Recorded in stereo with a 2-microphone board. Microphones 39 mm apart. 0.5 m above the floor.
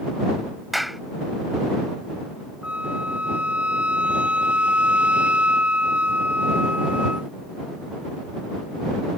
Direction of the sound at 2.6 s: 35° right (ahead or behind).